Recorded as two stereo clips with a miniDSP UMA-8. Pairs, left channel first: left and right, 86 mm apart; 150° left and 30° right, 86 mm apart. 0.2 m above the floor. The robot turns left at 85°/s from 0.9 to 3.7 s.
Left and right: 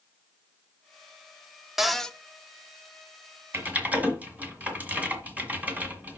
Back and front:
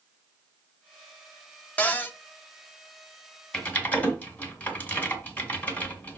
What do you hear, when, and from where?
1.8 s a cupboard door: 170° right, 0.6 m; by 2.2 s 160° left, 0.6 m
3.5 s typing on a keyboard: 135° right, 1.7 m; by 6.2 s 150° right, 1.7 m